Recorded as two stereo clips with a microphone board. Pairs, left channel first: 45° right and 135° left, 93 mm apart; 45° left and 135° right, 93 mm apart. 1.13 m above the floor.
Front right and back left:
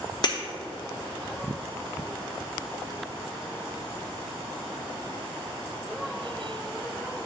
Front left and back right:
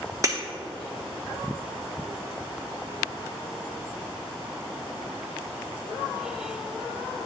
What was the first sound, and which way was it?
Breaking glass, 80° right.